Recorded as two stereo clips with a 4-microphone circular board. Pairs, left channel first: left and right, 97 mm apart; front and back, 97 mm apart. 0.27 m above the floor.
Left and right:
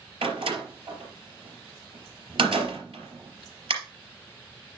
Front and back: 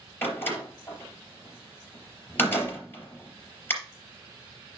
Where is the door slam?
70° right, 3.5 m.